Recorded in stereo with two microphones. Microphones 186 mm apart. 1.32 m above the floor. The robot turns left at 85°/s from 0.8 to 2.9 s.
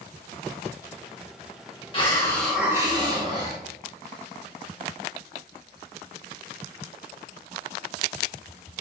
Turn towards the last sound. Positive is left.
turn(degrees=-35)